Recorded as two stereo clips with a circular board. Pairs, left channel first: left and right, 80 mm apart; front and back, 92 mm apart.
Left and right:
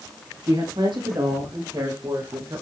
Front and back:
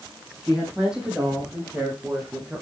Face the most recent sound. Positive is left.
turn(degrees=-105)